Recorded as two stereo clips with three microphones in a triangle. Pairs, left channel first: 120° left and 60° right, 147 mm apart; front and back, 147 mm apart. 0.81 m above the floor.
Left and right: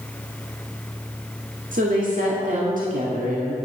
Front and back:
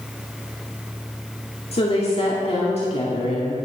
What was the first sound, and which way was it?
A woman speaking, 45° right.